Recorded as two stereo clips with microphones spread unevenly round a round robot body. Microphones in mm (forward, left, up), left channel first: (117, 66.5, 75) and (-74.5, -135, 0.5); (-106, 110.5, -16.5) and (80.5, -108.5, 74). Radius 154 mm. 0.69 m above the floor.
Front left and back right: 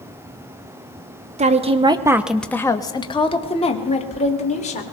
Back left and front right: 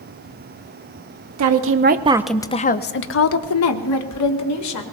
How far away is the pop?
No pop in this recording.